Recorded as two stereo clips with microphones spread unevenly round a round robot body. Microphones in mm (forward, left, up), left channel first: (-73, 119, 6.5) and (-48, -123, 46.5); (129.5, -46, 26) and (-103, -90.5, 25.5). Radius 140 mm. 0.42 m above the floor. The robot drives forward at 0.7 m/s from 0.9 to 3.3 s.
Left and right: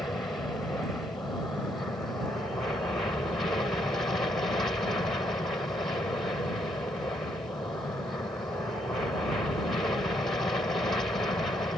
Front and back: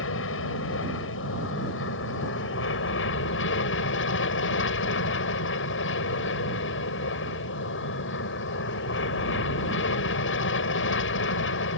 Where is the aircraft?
15° left.